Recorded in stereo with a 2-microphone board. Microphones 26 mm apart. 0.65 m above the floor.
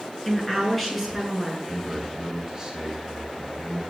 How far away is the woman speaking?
About 8 m.